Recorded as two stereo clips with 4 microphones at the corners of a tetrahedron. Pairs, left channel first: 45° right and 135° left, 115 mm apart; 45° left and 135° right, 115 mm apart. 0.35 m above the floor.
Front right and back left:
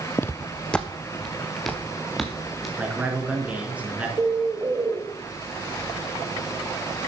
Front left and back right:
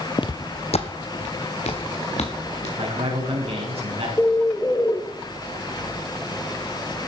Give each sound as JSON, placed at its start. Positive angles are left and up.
{"t": 0.2, "sound": "footsteps", "azimuth_deg": 15, "distance_m": 0.6}
{"t": 2.8, "sound": "a man speaking", "azimuth_deg": -150, "distance_m": 5.0}
{"t": 4.2, "sound": "a bird", "azimuth_deg": 100, "distance_m": 1.2}